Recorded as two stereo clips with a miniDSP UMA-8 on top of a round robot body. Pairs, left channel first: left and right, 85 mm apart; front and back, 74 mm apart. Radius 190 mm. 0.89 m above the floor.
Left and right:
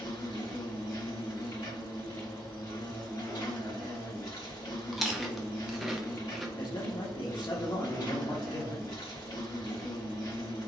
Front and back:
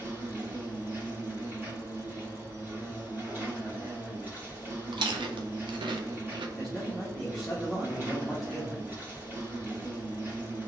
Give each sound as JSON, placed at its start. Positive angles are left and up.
{"t": 0.0, "sound": "an insect", "azimuth_deg": 120, "distance_m": 2.0}
{"t": 4.9, "sound": "chewing", "azimuth_deg": 180, "distance_m": 0.5}
{"t": 6.6, "sound": "a man speaking", "azimuth_deg": 95, "distance_m": 1.2}